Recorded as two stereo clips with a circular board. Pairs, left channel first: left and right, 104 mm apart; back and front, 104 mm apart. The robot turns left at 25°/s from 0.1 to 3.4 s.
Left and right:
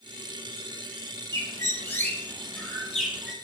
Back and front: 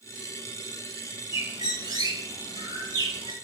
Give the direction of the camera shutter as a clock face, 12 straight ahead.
No camera shutter in this recording.